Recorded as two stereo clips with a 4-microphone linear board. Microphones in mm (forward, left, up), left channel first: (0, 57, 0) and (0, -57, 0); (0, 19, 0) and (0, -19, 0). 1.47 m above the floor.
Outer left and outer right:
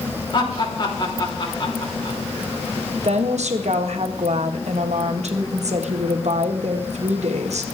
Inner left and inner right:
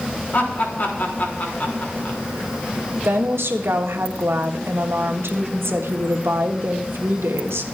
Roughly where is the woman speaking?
Right.